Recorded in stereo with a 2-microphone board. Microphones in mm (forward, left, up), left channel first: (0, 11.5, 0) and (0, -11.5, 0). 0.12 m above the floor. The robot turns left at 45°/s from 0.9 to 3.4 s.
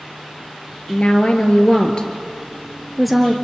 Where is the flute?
No flute in this recording.